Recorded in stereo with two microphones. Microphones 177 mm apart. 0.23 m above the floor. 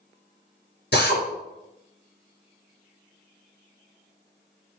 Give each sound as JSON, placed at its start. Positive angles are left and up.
{"t": 0.9, "sound": "a drill", "side_deg": 65, "distance_m": 3.5}